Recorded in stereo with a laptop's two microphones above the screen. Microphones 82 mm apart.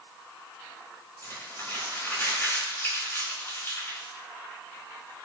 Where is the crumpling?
30° left (ahead or behind), 2.5 m.